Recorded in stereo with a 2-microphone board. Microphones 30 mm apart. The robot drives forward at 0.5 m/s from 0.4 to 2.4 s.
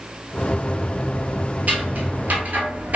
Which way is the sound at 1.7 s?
60° right (ahead or behind).